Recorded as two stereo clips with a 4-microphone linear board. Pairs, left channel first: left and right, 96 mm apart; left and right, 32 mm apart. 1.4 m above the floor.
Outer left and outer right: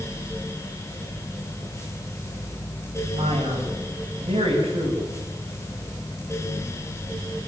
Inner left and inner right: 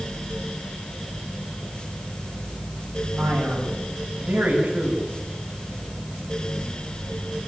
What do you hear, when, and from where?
3.2 s a man speaking: 85° right, 7 m